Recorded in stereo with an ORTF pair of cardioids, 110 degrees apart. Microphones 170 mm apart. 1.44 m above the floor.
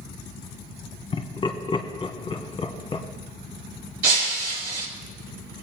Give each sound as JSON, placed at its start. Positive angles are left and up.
{"t": 1.1, "sound": "laughter", "azimuth_deg": 30, "distance_m": 1.2}
{"t": 4.0, "sound": "breaking glass", "azimuth_deg": -70, "distance_m": 3.0}